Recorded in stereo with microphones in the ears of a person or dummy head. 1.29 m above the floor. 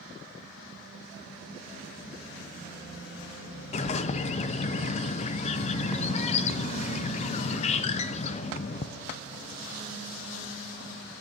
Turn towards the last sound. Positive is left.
turn(degrees=30)  # may be behind; listen again after turning